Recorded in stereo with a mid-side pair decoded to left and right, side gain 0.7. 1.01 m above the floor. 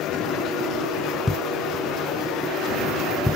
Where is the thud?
5° left.